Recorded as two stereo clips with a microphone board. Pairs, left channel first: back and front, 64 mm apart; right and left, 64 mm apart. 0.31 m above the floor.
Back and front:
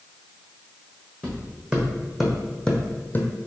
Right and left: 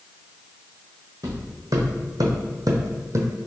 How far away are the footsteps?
About 1.2 m.